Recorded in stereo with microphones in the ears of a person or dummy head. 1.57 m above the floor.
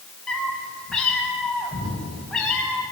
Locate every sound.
0.3 s a cat meowing: 5° left (ahead or behind), 4 m